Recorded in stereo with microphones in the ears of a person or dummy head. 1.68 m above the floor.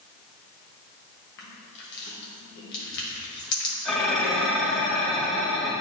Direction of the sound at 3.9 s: 5° left (ahead or behind).